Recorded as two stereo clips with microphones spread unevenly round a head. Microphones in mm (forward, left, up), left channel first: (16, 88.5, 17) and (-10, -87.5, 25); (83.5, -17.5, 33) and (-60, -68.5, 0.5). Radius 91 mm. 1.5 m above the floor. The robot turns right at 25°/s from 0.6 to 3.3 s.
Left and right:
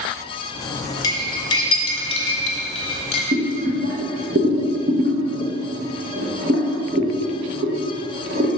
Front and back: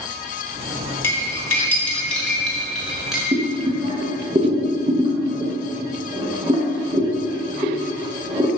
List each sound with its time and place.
1.0 s cutlery clinking: 35° left, 0.7 m; by 3.2 s 90° left, 0.7 m
3.3 s boiling: 95° right, 0.9 m